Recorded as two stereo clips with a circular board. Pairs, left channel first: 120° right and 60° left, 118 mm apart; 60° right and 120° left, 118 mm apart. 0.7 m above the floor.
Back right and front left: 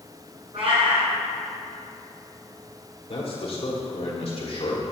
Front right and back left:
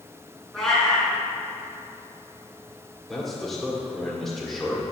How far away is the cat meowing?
About 2.5 m.